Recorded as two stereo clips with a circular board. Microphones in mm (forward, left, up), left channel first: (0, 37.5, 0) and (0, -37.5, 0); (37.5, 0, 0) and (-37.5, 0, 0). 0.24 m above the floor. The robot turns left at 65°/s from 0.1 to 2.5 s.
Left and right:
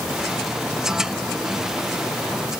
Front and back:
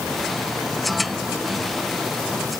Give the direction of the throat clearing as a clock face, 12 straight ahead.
No throat clearing in this recording.